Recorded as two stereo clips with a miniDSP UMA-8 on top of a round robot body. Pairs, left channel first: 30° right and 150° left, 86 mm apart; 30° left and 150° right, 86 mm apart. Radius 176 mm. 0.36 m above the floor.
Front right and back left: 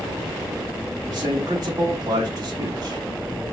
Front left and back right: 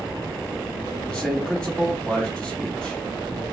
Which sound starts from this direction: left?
A man speaking, at 1.1 s.